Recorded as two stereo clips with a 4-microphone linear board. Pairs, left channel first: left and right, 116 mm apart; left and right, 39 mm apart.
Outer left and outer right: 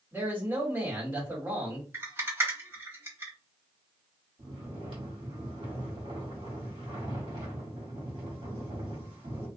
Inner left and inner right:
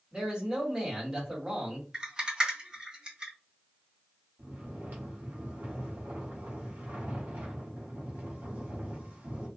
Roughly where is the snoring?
Right.